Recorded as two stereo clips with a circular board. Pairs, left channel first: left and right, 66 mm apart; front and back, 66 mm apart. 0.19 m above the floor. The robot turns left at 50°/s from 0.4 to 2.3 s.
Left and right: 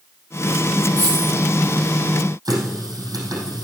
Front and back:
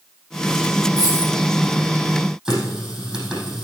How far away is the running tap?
About 4.5 m.